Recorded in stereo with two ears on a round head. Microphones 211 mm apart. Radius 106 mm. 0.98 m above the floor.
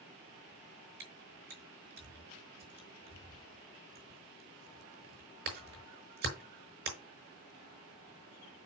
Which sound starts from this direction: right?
Chewing, at 1.0 s.